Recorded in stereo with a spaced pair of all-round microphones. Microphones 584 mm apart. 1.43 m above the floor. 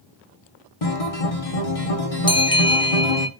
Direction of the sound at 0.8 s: 65° left (ahead or behind).